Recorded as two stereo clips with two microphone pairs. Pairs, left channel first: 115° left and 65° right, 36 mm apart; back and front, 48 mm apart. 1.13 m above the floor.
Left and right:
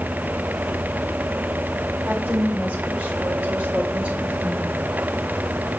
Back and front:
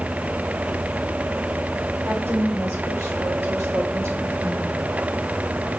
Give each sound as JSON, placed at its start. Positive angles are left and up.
{"t": 2.0, "sound": "a woman speaking", "azimuth_deg": -30, "distance_m": 5.0}